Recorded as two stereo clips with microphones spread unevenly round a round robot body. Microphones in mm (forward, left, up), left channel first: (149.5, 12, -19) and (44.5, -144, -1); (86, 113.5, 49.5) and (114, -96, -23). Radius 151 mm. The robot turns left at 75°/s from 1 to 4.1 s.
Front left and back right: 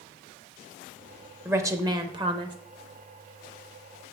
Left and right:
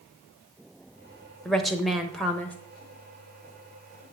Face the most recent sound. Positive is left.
turn(degrees=110)